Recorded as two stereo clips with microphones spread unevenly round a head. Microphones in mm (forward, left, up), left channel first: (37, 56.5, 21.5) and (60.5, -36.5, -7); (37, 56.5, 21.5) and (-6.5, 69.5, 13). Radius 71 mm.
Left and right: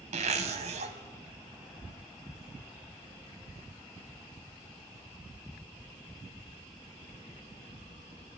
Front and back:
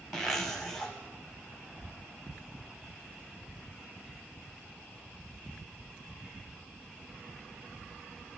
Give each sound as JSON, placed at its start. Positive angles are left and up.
{"t": 0.1, "sound": "a zipper", "azimuth_deg": -105, "distance_m": 1.4}